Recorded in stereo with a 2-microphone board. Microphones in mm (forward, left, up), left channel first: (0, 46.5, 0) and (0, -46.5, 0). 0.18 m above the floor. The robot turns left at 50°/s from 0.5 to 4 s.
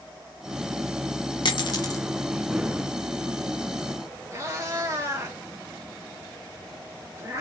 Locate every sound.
1.4 s a dropped coin: 60° left (ahead or behind), 0.7 m; by 2.0 s 35° left (ahead or behind), 0.7 m
4.3 s a cat meowing: 30° right (ahead or behind), 1.0 m